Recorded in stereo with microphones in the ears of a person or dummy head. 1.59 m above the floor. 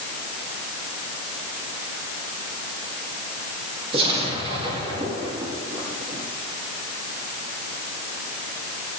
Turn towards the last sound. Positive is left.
turn(degrees=-30)  # may be behind; listen again after turning